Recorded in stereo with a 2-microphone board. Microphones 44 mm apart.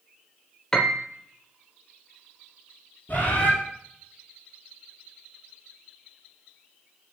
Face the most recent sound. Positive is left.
turn(degrees=45)  # may be behind; listen again after turning